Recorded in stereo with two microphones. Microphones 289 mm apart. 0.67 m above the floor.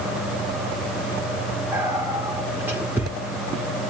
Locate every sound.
1.7 s whispering: 10° right (ahead or behind), 1.7 m